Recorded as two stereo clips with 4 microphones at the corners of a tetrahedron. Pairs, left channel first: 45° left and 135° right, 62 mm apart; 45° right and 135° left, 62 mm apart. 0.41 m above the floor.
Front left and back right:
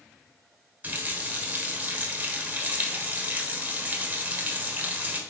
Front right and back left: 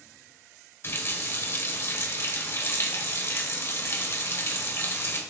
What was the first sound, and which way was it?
A running tap, 80° right.